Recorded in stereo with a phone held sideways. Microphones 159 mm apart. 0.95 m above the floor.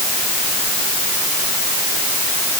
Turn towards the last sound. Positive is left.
No sound to turn to.